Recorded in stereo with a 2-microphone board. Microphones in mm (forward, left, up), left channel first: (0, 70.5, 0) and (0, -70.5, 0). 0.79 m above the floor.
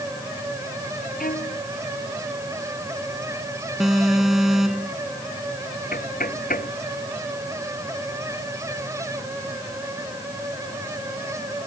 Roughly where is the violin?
Left.